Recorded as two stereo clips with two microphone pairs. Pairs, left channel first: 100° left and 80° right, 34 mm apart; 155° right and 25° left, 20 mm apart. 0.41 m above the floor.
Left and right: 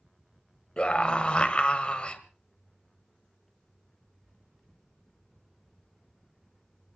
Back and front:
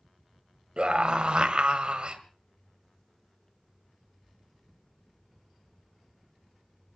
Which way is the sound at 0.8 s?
45° left.